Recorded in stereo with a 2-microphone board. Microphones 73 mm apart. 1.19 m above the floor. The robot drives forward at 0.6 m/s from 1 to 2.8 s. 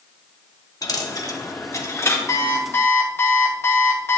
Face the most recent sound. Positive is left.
turn(degrees=35)  # may be behind; listen again after turning